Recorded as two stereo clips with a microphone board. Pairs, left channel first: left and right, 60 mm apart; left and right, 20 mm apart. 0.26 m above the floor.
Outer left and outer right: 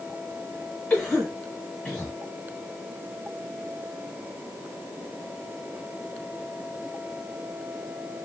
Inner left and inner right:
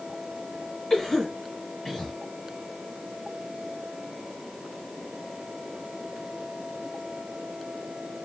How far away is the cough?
About 1.3 m.